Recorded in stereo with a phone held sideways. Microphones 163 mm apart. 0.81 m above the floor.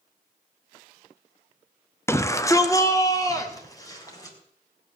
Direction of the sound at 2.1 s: 15° left (ahead or behind).